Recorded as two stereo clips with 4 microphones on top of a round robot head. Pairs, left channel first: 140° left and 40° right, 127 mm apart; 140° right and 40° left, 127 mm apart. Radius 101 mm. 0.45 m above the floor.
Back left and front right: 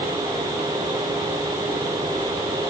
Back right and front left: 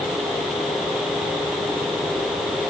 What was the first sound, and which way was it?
Only background noise.